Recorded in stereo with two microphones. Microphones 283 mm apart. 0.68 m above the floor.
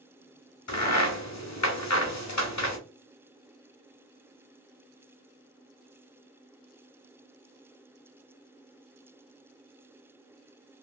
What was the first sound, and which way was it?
A crack, 70° left (ahead or behind).